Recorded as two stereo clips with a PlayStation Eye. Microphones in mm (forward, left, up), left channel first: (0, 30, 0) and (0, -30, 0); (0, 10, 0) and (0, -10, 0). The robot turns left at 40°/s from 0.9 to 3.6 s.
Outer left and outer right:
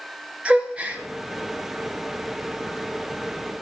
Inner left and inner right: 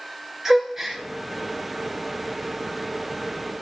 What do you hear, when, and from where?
0.5 s a gasp: 20° right (ahead or behind), 1.5 m; by 1.0 s 25° right (ahead or behind), 1.5 m